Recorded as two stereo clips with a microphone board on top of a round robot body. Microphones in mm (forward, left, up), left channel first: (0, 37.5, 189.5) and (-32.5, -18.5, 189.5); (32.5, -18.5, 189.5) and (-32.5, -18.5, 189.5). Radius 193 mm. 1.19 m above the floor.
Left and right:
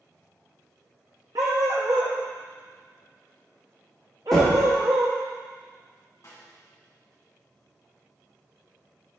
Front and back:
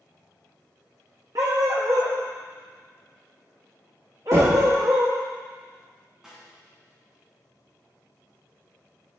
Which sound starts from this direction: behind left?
Knocking, at 4.3 s.